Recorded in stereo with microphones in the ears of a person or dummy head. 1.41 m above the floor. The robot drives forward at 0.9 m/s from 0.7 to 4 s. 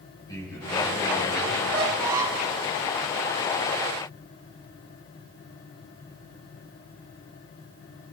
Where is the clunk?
No clunk in this recording.